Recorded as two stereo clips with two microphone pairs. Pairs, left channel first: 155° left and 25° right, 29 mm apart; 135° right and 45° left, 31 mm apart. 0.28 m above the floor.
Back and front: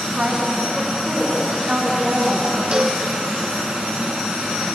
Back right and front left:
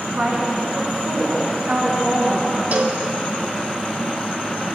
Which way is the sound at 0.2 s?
20° left.